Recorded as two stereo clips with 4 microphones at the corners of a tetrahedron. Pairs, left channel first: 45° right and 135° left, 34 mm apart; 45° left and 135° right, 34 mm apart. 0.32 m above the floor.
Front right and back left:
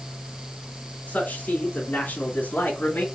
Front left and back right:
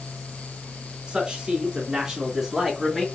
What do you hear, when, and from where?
1.1 s a man speaking: 75° right, 3.5 m; by 3.0 s 50° right, 3 m